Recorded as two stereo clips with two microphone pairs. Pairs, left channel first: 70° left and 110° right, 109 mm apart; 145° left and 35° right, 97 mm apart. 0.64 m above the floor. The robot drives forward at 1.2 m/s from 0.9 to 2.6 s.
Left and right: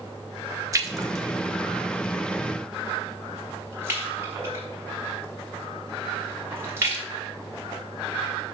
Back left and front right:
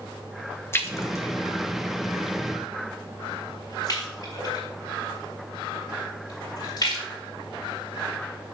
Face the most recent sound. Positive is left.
turn(degrees=-170)